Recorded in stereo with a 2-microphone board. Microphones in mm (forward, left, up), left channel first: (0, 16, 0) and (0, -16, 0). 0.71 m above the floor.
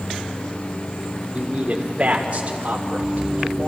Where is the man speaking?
35° right (ahead or behind), 1.8 m; by 3.7 s 45° right (ahead or behind), 3 m.